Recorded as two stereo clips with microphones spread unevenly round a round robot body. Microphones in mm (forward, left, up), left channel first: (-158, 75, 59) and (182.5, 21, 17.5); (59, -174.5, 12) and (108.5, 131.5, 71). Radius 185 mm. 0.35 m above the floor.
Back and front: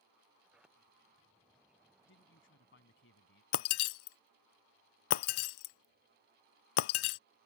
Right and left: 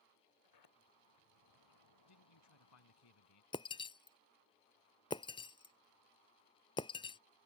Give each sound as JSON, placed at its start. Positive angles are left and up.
{"t": 0.4, "sound": "a sliding door", "azimuth_deg": -95}
{"t": 2.0, "sound": "a man speaking", "azimuth_deg": -130}
{"t": 3.5, "sound": "breaking glass", "azimuth_deg": 180}